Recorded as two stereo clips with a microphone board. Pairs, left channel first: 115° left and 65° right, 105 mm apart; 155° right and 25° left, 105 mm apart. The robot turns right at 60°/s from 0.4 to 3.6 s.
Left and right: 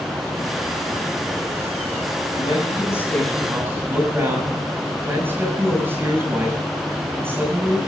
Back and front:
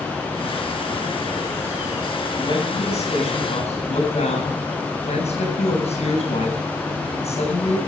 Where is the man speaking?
150° left, 8 m; by 7.8 s 140° right, 8 m.